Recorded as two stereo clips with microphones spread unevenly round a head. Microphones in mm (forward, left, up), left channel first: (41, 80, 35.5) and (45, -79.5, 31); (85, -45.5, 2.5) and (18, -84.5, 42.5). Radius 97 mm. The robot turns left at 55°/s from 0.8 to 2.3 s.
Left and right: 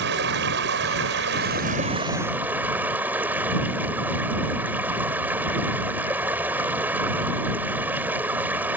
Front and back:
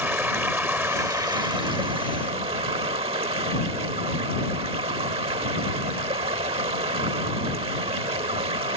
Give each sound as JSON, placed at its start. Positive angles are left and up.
{"t": 0.0, "sound": "running water", "azimuth_deg": -90}